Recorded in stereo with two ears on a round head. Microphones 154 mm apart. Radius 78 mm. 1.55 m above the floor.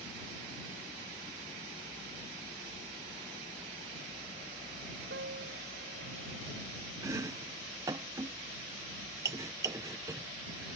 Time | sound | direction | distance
5.1 | a piano | 65° right (ahead or behind) | ?
7.0 | chopping | 15° right (ahead or behind) | ?